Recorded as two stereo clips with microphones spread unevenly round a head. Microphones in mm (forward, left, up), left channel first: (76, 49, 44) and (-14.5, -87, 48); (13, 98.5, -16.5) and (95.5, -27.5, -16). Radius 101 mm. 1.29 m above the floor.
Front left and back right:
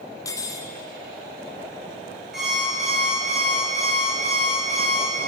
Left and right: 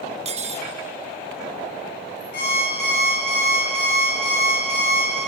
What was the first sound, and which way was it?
Cutlery clinking, 15° right.